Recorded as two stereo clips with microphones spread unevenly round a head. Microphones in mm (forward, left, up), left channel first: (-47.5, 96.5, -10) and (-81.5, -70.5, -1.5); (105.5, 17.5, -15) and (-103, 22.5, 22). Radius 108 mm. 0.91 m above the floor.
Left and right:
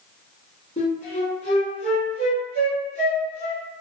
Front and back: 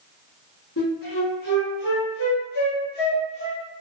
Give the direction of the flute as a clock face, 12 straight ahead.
11 o'clock.